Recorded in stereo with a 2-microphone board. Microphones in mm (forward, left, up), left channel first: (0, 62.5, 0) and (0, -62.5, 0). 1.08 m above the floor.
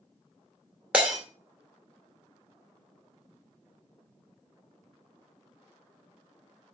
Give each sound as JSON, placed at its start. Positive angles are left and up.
{"t": 0.9, "sound": "breaking glass", "side_deg": -10, "distance_m": 2.0}